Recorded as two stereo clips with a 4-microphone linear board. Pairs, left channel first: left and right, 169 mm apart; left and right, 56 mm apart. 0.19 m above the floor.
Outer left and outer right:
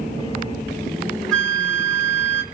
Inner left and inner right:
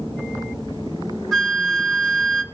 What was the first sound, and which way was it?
A flute, 5° left (ahead or behind).